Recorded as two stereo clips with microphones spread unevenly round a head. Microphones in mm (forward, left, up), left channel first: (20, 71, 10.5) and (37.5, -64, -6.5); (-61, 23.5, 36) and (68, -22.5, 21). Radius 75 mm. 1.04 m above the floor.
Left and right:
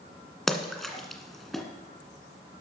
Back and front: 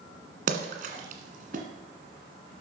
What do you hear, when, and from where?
0.5 s a splash: 15° left, 1.8 m